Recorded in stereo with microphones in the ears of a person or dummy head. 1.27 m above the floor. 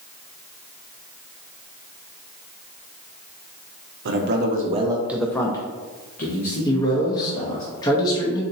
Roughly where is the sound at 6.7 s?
Left.